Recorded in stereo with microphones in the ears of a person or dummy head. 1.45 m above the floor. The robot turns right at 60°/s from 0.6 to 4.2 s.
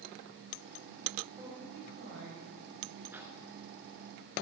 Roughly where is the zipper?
Centre.